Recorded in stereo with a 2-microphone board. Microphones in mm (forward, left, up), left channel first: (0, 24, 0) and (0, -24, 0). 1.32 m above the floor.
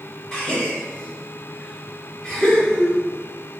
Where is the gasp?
10° left (ahead or behind), 1.7 m.